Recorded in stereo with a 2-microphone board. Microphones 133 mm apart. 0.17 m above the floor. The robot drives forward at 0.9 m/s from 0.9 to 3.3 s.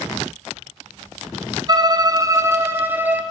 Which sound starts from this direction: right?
A violin, at 1.7 s.